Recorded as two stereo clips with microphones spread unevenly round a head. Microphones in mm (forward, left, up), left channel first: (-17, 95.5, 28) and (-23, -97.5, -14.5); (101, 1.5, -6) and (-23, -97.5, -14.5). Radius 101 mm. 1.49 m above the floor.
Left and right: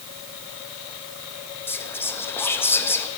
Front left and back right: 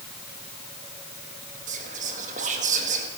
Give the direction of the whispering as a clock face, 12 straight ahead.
7 o'clock.